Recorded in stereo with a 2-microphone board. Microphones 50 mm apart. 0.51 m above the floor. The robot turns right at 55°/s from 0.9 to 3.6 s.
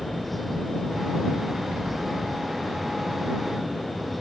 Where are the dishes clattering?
No dishes clattering in this recording.